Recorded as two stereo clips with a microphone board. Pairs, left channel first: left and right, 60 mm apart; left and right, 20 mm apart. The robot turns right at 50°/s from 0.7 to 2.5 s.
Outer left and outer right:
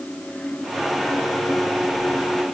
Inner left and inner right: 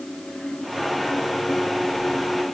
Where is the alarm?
I don't hear an alarm.